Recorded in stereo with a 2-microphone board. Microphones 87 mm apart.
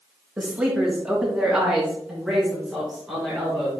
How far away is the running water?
No running water in this recording.